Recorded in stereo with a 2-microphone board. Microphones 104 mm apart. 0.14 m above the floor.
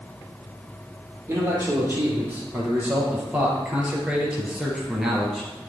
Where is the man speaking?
30° right (ahead or behind), 4.5 m; by 5.5 s centre (ahead or behind), 3 m.